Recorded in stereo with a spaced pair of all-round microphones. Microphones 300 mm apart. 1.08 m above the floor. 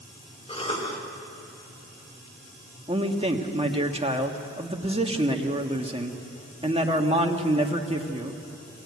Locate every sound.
0.5 s a cough: 20° left (ahead or behind), 4 m
2.9 s a man speaking: 20° right (ahead or behind), 1.5 m